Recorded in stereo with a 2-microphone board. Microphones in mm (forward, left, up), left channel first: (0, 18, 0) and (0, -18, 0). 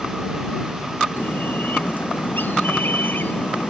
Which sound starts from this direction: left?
A bird, at 1.2 s.